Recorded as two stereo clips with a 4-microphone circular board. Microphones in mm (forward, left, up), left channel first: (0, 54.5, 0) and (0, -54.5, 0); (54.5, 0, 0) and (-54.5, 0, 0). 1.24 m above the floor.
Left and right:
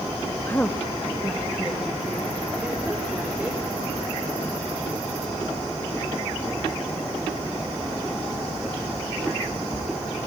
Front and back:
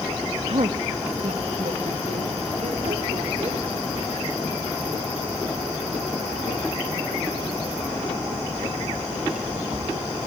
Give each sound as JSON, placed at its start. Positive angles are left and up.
{"t": 0.5, "sound": "a woman speaking", "azimuth_deg": 160, "distance_m": 1.0}